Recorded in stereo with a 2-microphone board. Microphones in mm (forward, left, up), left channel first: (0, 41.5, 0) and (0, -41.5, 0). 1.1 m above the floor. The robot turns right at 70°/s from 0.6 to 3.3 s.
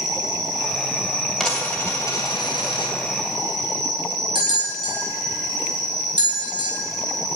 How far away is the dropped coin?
About 2.5 m.